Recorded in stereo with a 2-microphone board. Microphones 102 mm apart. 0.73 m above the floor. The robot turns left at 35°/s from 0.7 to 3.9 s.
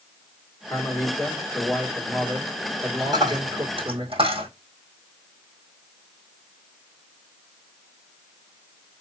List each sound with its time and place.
0.7 s a man speaking: 40° left, 2 m; by 4.0 s 75° right, 2 m
3.0 s a dropped coin: 40° right (ahead or behind), 2.5 m; by 4.5 s 65° right (ahead or behind), 2.5 m